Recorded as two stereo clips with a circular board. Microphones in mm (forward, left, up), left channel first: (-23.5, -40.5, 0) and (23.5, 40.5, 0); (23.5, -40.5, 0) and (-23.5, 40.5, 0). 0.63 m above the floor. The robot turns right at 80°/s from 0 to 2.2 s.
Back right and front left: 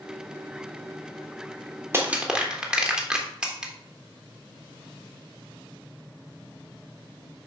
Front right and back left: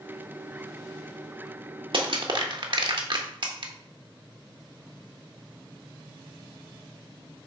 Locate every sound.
1.9 s crushing: 120° left, 1.3 m; by 3.7 s 140° left, 1.3 m